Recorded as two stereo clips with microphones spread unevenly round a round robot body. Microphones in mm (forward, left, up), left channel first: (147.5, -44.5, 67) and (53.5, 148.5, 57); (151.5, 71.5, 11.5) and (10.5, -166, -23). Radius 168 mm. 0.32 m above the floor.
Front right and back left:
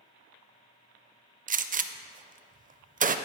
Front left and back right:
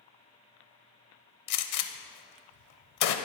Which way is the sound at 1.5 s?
65° left.